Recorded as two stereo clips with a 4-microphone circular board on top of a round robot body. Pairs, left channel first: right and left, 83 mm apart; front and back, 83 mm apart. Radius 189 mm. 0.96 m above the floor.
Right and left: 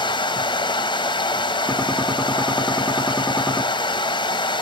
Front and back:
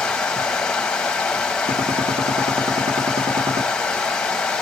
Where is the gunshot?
175° right, 1.0 m.